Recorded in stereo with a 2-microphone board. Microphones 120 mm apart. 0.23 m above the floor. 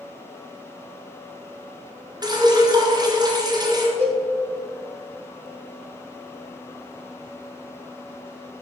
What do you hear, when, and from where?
2.2 s dripping: 35° right (ahead or behind), 2.5 m
4.0 s a cowbell: 55° right (ahead or behind), 4 m